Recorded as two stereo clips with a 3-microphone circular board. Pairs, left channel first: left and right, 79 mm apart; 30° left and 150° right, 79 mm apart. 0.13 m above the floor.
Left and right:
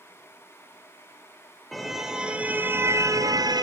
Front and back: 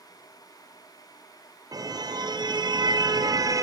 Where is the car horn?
Straight behind, 2.5 m; by 3.6 s 110° right, 1.9 m.